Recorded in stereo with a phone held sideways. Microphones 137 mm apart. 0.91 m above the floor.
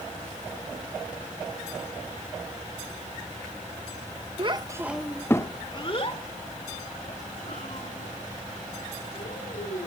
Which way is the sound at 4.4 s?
40° right (ahead or behind).